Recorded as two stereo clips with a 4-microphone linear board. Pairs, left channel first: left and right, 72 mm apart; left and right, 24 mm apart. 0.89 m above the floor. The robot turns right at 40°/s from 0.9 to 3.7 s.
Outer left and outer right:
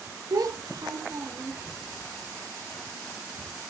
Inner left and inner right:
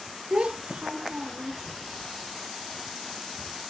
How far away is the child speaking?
About 0.6 m.